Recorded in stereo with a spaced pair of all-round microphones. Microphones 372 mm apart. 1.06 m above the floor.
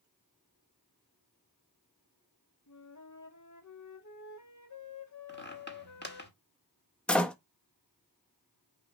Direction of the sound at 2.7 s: 50° left (ahead or behind).